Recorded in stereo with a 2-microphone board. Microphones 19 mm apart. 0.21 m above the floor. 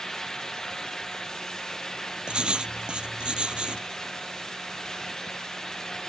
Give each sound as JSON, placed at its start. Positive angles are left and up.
{"t": 2.3, "sound": "writing", "side_deg": -50}